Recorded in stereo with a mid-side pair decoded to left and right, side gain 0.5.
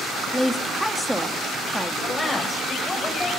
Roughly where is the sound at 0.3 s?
Ahead.